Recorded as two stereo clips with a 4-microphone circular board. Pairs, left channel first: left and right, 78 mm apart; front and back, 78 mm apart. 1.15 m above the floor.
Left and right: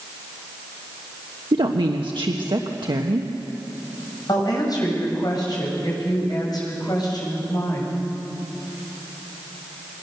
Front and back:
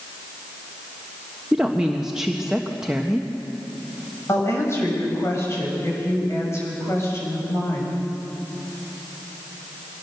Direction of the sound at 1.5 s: 100° right.